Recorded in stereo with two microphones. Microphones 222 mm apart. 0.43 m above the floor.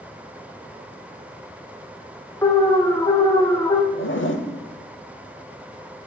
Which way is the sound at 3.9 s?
60° left (ahead or behind).